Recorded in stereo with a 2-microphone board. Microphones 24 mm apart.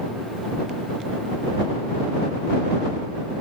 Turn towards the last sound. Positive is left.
No sound to turn to.